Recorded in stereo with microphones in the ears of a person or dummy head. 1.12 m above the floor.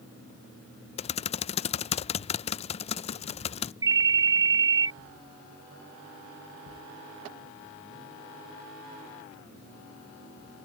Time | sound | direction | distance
1.0 | typing on a keyboard | 30° left (ahead or behind) | ?
3.8 | a ringtone | 15° right (ahead or behind) | ?